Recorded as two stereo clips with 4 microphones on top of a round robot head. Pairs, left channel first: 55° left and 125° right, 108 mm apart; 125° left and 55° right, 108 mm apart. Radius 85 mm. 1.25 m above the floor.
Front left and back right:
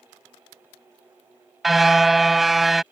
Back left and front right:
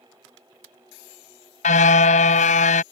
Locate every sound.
1.6 s a car horn: 145° left